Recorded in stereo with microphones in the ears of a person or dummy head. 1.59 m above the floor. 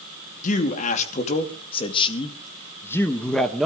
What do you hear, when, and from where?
0.4 s a man speaking: 50° left (ahead or behind), 2.5 m; by 3.6 s centre (ahead or behind), 1.5 m